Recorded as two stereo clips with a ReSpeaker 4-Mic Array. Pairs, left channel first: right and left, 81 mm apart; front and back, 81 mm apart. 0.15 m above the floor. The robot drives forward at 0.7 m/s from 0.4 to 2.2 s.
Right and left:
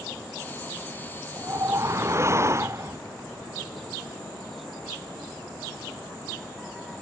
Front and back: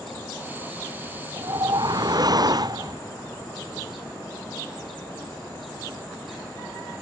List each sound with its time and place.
1.4 s a whoosh: 140° left; by 3.0 s 145° left